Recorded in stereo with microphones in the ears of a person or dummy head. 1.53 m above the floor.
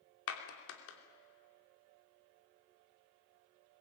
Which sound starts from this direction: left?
A clap, at 0.3 s.